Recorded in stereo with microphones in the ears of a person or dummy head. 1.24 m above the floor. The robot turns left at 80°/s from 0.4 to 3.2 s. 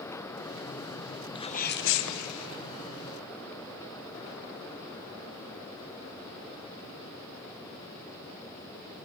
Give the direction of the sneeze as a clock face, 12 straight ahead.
7 o'clock.